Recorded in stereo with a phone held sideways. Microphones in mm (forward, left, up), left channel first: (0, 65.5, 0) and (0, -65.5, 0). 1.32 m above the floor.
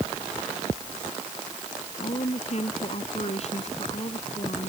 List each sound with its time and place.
2.0 s a woman speaking: 55° left (ahead or behind)